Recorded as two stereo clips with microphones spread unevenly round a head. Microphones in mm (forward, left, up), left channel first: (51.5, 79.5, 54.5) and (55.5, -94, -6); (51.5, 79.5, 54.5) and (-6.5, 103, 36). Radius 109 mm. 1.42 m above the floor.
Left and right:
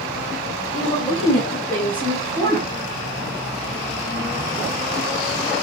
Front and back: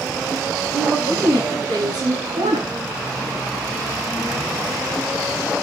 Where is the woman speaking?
160° left, 7 m; by 2.7 s 175° left, 8 m.